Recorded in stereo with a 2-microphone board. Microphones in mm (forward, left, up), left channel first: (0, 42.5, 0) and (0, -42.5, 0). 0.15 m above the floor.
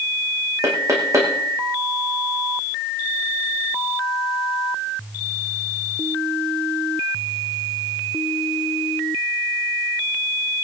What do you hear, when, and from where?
0.6 s knocking: 40° right (ahead or behind), 5.5 m